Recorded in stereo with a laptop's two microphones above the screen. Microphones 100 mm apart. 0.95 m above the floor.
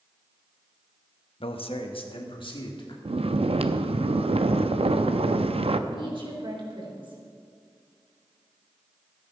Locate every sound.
1.4 s a man speaking: 65° left (ahead or behind), 0.9 m; by 3.0 s 55° left (ahead or behind), 2 m
3.0 s snoring: 75° right (ahead or behind), 0.6 m
5.9 s a woman speaking: 55° right (ahead or behind), 3.5 m